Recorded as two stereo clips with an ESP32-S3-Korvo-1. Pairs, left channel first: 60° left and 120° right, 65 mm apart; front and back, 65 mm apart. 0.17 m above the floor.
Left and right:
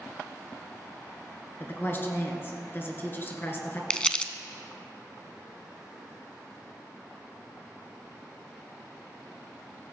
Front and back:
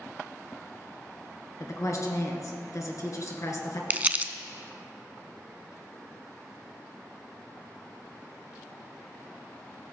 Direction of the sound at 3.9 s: 130° left.